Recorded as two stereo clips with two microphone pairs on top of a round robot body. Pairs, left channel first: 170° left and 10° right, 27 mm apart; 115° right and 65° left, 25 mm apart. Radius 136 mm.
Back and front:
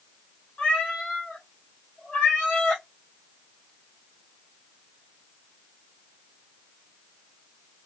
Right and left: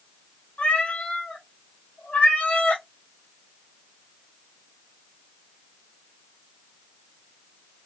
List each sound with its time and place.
0.6 s a cat meowing: 155° right, 0.9 m